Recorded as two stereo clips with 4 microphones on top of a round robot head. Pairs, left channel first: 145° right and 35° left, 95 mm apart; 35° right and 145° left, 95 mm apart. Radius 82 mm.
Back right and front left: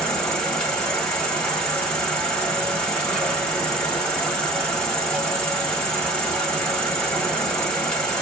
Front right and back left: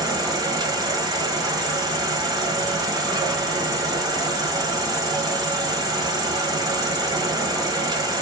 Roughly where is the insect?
Behind left.